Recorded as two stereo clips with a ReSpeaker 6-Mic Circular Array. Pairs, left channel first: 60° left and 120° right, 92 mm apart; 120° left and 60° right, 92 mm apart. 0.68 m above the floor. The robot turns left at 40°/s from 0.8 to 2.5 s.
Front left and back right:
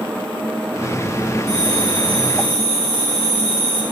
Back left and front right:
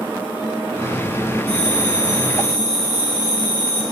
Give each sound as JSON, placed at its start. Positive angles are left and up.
{"t": 1.5, "sound": "a bell", "azimuth_deg": -90, "distance_m": 5.5}